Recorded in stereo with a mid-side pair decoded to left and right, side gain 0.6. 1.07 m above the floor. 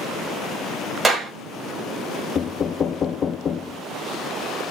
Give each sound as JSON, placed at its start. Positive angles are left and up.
{"t": 1.0, "sound": "a clap", "azimuth_deg": -15, "distance_m": 6.0}
{"t": 2.4, "sound": "knocking", "azimuth_deg": 40, "distance_m": 0.9}